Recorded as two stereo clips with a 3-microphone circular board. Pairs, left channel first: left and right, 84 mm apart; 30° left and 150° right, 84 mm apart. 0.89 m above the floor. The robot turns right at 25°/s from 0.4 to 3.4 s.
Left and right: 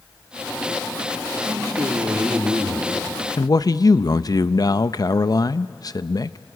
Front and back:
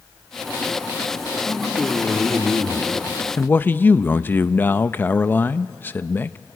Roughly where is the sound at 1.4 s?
Ahead right.